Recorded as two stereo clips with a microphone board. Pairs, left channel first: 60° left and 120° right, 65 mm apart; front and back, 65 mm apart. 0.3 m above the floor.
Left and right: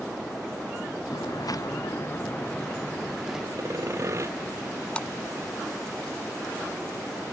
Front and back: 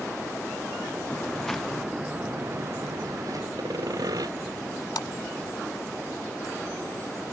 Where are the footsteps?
70° left; by 3.5 s 155° left.